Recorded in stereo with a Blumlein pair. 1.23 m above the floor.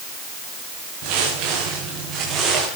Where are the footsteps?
40° right, 7 m; by 2.7 s 20° right, 7.5 m.